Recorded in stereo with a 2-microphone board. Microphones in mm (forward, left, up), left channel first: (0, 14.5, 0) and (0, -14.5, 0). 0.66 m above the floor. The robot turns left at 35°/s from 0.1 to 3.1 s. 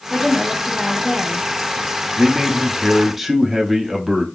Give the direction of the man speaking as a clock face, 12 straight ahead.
5 o'clock.